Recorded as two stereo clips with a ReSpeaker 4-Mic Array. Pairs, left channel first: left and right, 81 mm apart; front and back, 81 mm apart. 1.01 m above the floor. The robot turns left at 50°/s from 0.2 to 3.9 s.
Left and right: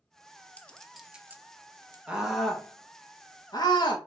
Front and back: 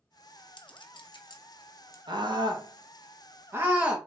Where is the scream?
165° right, 1.6 m; by 4.0 s 105° left, 1.6 m.